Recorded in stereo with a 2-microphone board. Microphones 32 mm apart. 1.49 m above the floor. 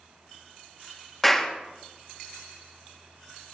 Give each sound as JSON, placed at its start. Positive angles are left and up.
{"t": 1.2, "sound": "a clap", "side_deg": 0, "distance_m": 1.6}